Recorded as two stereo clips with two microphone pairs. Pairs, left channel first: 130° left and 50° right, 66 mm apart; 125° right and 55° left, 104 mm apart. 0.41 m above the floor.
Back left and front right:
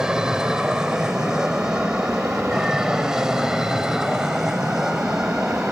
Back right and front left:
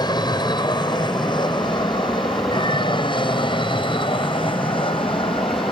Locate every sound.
0.0 s an aircraft: 125° right; by 5.7 s 130° right